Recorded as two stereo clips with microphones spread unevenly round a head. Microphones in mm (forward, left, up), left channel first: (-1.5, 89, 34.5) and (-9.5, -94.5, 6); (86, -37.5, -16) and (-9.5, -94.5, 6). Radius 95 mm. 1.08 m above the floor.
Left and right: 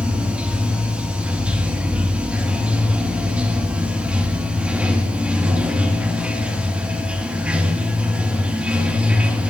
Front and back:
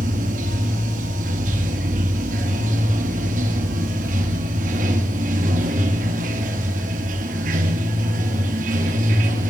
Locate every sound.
0.0 s running water: 175° right, 1.7 m